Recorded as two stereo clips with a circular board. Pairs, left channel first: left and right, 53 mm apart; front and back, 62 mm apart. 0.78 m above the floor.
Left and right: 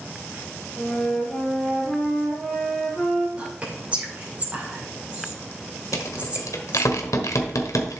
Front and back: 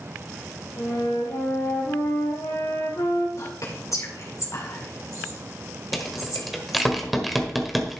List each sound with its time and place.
0.8 s a flute: 5° left, 2 m
3.4 s whispering: 30° right, 2.5 m
5.9 s a rattle: 90° left, 1.4 m